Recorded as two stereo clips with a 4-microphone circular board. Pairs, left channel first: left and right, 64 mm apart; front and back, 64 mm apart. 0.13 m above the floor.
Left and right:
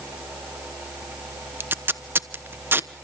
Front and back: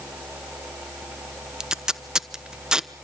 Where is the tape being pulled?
110° right, 0.9 m.